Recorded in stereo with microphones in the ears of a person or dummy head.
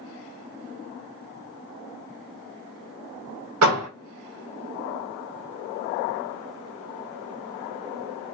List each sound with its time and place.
3.6 s a door slam: 80° right, 1.4 m